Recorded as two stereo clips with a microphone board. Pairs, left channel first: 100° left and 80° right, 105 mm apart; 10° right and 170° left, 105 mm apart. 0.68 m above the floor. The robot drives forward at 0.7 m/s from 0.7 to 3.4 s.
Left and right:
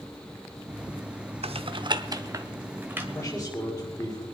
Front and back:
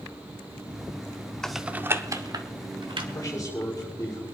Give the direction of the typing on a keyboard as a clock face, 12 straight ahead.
3 o'clock.